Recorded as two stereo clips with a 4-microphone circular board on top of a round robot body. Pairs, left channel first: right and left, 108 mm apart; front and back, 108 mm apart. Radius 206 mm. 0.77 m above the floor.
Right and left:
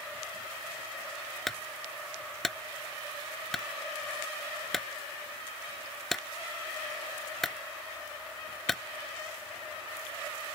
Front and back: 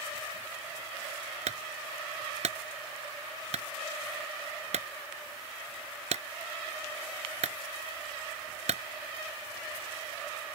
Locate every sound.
1.5 s a clunk: straight behind